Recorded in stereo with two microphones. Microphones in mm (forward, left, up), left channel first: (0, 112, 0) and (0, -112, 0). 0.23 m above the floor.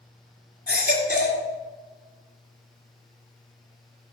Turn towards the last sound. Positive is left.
turn(degrees=35)  # may be behind; listen again after turning